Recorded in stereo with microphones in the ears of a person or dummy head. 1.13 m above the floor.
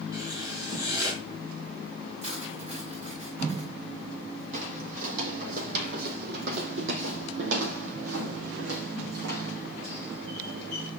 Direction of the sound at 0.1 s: 20° right (ahead or behind).